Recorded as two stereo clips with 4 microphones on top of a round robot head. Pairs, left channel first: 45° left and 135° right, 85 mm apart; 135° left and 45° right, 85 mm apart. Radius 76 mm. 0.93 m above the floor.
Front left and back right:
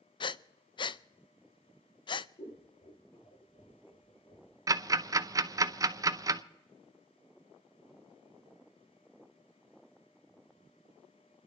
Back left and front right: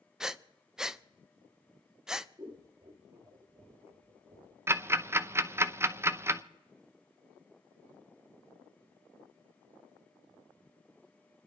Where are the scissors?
20° left, 2.5 m.